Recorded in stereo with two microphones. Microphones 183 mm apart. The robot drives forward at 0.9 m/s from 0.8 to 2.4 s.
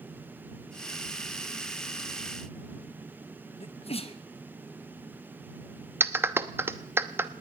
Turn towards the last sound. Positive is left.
turn(degrees=-15)  # may be behind; listen again after turning